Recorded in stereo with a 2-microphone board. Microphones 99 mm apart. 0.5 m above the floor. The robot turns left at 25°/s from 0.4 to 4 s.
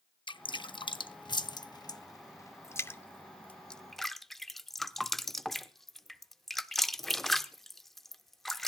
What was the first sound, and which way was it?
Dripping, 55° left (ahead or behind).